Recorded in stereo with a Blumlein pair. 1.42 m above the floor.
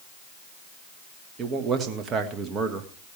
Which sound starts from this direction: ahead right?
A man speaking, at 1.4 s.